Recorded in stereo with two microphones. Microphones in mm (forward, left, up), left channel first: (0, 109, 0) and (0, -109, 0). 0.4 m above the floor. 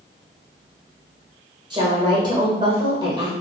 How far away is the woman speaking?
About 1.2 m.